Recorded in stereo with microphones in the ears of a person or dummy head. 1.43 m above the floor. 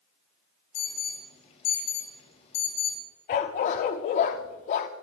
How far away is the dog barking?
About 1.1 m.